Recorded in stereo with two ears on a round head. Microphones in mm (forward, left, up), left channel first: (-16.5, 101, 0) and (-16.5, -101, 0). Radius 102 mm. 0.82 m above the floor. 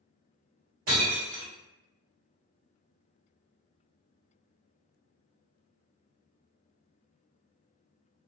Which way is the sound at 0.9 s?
60° right (ahead or behind).